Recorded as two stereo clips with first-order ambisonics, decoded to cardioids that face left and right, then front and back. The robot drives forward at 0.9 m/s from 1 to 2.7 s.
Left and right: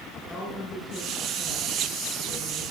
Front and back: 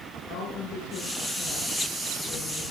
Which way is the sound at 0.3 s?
20° left.